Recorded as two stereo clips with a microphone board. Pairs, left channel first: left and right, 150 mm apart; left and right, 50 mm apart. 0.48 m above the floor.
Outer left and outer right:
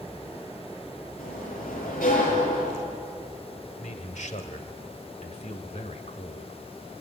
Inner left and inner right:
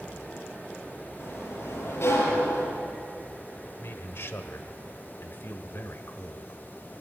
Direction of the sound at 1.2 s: 75° left (ahead or behind).